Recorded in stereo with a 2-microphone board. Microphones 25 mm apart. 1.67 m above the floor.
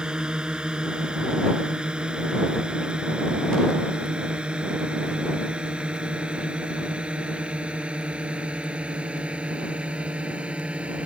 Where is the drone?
35° right (ahead or behind); by 11.1 s 55° right (ahead or behind).